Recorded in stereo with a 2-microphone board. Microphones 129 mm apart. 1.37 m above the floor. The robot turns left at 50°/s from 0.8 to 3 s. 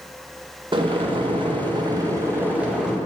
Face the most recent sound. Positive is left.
turn(degrees=180)